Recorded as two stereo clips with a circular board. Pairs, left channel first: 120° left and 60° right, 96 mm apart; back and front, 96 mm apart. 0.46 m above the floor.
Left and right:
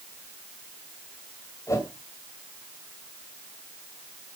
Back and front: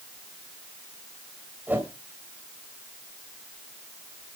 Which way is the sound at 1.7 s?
70° left.